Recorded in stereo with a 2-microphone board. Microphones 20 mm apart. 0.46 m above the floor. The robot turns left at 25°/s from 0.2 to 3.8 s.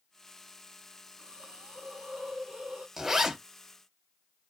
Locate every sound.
1.2 s a hiss: 75° right, 0.7 m; by 2.9 s 115° right, 0.7 m
3.0 s a zipper: 20° right (ahead or behind), 1.1 m; by 3.4 s 30° right (ahead or behind), 1.1 m